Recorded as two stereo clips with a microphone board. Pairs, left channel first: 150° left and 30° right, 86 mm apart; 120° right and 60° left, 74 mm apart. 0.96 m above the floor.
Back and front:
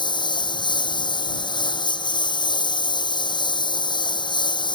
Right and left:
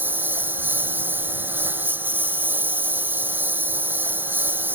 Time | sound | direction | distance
0.0 | a lawn mower | 125° left | ?